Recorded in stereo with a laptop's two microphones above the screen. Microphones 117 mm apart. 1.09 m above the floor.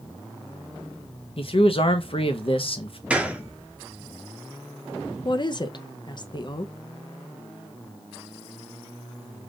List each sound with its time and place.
1.4 s a man speaking: 55° left (ahead or behind), 0.8 m
3.1 s a gunshot: 10° right (ahead or behind), 0.5 m
5.2 s a woman speaking: 40° left (ahead or behind), 0.6 m